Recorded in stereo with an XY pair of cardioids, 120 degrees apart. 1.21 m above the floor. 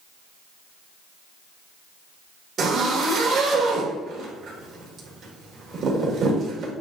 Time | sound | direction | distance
2.6 | a zipper | 50° right | 2.5 m